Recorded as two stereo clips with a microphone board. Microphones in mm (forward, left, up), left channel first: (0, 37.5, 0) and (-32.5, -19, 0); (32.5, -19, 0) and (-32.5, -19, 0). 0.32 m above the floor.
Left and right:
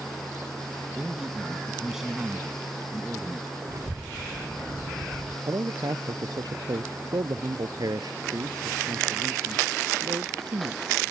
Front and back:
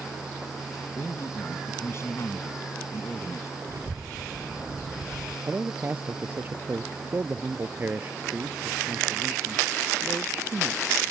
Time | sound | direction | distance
1.0 | a man speaking | 40° right | ?
3.7 | a child speaking | 145° right | ?
5.5 | a man speaking | 125° right | ?